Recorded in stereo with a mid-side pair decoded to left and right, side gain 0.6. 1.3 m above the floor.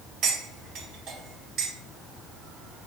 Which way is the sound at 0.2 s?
55° right.